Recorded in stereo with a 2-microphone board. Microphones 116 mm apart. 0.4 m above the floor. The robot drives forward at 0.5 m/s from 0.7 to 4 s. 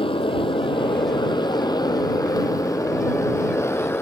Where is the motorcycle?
50° left (ahead or behind); by 4.0 s 20° left (ahead or behind).